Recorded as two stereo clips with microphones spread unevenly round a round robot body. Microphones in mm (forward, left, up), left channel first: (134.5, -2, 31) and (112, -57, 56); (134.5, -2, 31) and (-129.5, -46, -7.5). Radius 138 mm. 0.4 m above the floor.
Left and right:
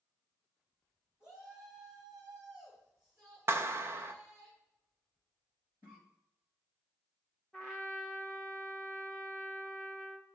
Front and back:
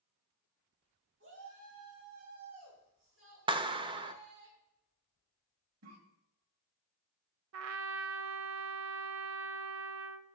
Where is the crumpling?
I don't hear crumpling.